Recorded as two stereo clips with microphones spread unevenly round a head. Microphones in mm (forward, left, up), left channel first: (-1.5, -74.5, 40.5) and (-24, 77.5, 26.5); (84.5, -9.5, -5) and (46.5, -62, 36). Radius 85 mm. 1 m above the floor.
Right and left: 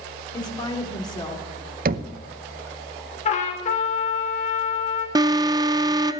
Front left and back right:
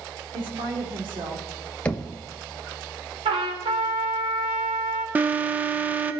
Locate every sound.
0.3 s a woman speaking: 145° right, 2.5 m
1.9 s knocking: 105° left, 0.7 m
3.2 s a trumpet: 130° right, 2 m
5.2 s an alarm: 125° left, 0.6 m